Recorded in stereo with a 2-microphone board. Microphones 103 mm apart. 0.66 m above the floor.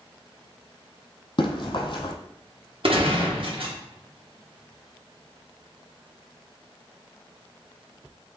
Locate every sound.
1.4 s running footsteps: 50° left (ahead or behind), 1.5 m
2.8 s a gunshot: 60° right (ahead or behind), 0.9 m